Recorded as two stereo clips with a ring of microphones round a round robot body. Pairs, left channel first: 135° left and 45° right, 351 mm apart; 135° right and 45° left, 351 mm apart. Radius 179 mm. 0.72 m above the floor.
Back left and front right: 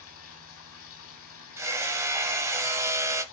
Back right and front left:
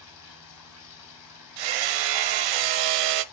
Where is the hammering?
35° left, 0.7 m.